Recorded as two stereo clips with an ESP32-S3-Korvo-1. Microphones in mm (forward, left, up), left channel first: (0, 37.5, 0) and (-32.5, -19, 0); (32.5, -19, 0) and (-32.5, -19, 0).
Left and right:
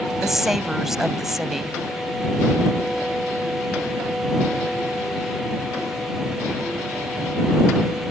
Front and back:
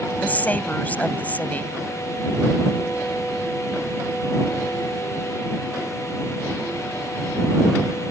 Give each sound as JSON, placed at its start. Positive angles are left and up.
{"t": 0.2, "sound": "a woman speaking", "azimuth_deg": -40}